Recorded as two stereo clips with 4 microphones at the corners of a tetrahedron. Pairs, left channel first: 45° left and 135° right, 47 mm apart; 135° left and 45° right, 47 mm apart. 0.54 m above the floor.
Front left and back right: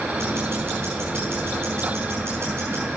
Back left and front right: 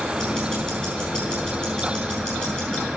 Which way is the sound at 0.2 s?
160° right.